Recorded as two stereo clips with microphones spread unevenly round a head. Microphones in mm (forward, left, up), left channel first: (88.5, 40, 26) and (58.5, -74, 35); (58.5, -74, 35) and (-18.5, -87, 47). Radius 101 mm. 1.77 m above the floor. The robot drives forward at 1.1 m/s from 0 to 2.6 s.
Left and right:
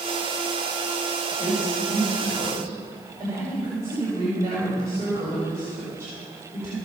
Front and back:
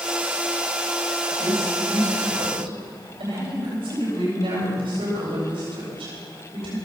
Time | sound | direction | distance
1.4 | a woman speaking | straight behind | 6.5 m